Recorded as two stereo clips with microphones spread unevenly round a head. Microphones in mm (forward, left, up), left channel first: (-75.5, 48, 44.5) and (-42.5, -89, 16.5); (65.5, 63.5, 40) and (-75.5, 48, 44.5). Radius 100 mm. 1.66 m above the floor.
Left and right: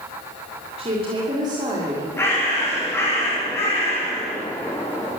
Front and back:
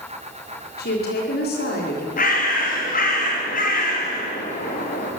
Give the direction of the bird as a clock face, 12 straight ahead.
11 o'clock.